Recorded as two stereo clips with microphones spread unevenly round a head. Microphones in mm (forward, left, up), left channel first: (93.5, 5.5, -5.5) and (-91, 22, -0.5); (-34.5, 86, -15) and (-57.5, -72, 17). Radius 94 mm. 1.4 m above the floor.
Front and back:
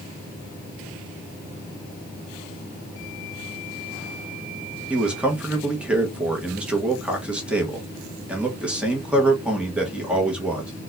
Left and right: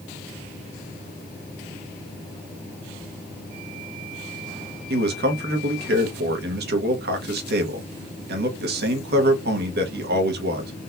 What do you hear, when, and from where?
4.9 s a man speaking: 100° right, 1.0 m